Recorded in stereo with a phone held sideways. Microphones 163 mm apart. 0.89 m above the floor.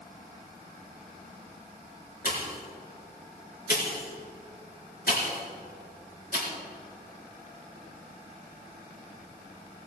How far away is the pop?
About 3.5 m.